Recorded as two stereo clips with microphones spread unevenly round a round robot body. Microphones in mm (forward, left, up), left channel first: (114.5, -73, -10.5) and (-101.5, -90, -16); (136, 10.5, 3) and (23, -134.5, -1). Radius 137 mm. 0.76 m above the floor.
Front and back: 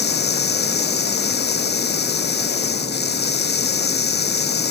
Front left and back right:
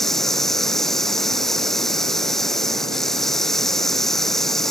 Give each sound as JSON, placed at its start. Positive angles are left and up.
{"t": 0.0, "sound": "running water", "azimuth_deg": -35}